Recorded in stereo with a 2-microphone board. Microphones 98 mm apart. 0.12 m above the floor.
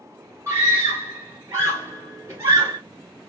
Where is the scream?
30° right (ahead or behind), 2 m.